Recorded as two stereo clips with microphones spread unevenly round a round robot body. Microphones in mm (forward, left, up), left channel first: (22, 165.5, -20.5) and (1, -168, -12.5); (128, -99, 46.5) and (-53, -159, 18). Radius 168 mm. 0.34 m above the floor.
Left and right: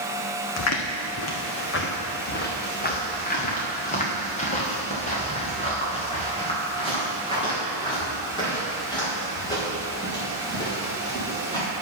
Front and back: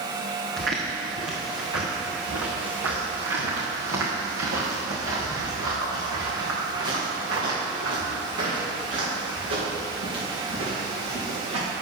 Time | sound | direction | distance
0.6 | footsteps | 130° left | 1.5 m